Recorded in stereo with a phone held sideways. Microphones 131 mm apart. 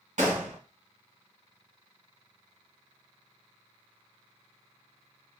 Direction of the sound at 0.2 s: 70° right (ahead or behind).